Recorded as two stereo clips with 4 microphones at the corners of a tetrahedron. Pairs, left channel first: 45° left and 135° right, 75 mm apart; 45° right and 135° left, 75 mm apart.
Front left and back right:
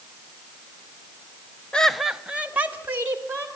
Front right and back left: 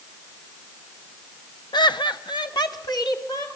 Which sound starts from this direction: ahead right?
Laughter, at 1.7 s.